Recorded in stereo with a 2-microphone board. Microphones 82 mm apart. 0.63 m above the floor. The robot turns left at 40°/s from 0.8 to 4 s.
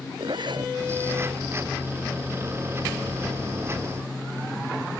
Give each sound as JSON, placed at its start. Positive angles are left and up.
{"t": 0.2, "sound": "a zipper", "side_deg": -70}